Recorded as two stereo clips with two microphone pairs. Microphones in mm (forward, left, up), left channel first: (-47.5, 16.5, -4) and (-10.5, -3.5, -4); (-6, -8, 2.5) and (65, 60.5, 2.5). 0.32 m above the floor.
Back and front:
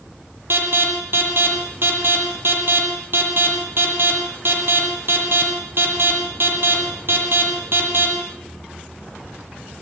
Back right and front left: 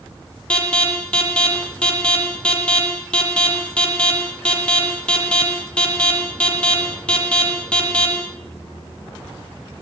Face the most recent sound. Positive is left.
turn(degrees=-55)